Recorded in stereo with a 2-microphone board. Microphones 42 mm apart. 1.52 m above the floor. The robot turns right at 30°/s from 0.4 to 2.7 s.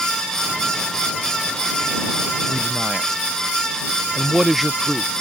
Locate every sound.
2.5 s a man speaking: 15° right (ahead or behind); by 5.1 s 5° right (ahead or behind)